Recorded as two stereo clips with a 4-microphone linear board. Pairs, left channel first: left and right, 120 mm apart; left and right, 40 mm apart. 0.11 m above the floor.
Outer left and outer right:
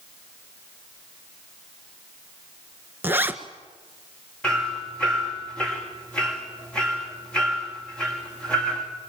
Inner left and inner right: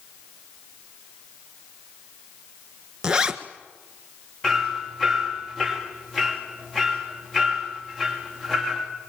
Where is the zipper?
15° right (ahead or behind), 1.6 m.